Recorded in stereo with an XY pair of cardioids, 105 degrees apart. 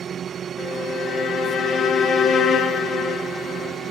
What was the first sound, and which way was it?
A violin, 60° left.